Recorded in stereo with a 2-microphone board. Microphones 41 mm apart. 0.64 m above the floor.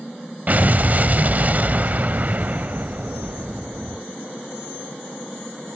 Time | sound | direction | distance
0.5 | an explosion | 45° right (ahead or behind) | 0.6 m